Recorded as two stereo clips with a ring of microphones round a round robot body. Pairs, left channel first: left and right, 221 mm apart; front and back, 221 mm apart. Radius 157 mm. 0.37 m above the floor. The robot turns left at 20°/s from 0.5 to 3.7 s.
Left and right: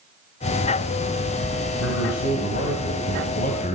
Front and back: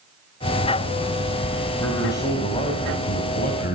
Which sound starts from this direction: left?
A man speaking, at 1.8 s.